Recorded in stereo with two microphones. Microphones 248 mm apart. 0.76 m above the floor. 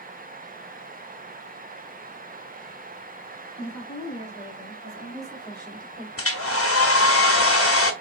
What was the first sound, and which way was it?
A woman speaking, 35° left (ahead or behind).